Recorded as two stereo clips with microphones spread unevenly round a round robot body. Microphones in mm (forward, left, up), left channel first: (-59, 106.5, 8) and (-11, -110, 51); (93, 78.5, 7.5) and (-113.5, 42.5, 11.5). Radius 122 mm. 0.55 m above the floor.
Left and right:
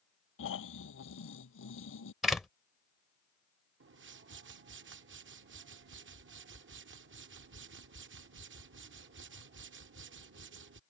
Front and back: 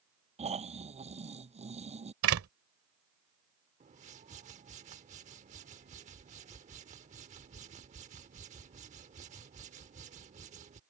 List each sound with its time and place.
0.4 s snoring: 130° left
2.2 s a door slam: 170° right
3.8 s a whoosh: 110° right